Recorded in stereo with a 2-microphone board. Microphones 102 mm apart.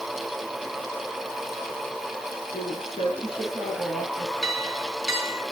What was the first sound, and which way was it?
A woman speaking, 65° left (ahead or behind).